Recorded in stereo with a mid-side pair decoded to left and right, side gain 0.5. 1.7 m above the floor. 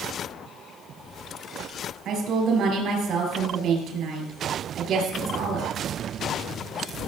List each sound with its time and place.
2.0 s a woman speaking: 65° right, 6 m